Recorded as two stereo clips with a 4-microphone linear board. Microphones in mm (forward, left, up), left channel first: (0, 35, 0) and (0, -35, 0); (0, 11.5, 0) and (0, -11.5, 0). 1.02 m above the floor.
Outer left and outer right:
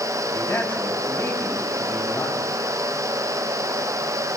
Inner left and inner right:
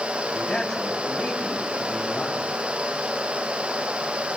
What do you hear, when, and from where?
0.3 s a man speaking: 30° left (ahead or behind), 5.5 m